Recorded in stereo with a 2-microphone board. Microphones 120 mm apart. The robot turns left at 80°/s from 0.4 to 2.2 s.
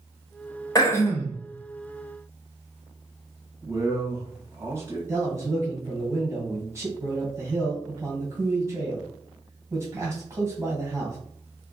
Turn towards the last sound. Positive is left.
turn(degrees=-20)  # may be behind; listen again after turning